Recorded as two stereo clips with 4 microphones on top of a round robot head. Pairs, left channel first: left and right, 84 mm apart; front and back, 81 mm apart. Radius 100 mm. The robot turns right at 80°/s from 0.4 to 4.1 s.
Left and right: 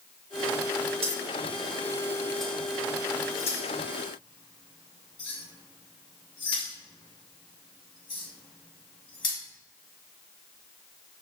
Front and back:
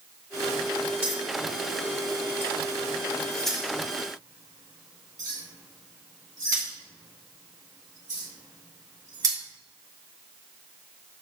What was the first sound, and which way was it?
Keys jangling, 110° right.